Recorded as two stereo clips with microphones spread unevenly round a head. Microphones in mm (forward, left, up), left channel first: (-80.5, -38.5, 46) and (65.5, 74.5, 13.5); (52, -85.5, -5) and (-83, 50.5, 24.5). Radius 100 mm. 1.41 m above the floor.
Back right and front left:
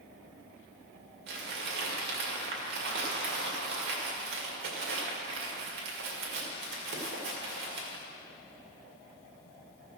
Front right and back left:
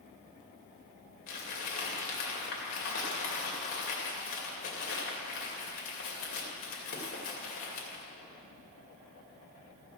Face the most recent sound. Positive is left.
turn(degrees=5)